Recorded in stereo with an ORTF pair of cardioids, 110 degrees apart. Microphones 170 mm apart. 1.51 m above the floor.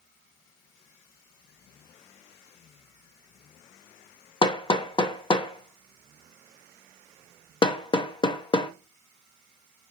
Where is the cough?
No cough in this recording.